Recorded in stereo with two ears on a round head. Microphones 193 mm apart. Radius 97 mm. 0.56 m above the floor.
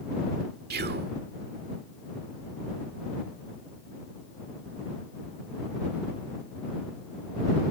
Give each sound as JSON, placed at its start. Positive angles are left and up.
{"t": 0.7, "sound": "whispering", "side_deg": -50}